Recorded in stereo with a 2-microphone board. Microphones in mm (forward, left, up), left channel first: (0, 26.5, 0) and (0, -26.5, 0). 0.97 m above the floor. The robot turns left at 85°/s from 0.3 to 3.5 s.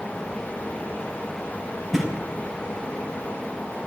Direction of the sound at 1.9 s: Centre (ahead or behind).